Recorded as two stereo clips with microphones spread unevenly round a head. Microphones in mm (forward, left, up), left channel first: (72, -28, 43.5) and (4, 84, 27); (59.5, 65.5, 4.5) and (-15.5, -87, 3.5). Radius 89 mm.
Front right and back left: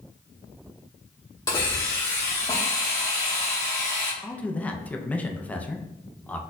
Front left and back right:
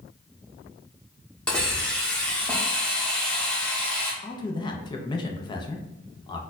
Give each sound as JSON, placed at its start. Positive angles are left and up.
{"t": 1.5, "sound": "a hiss", "azimuth_deg": -20, "distance_m": 1.1}
{"t": 4.2, "sound": "a man speaking", "azimuth_deg": 25, "distance_m": 0.5}